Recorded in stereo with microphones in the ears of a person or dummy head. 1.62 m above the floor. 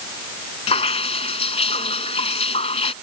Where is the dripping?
40° left (ahead or behind).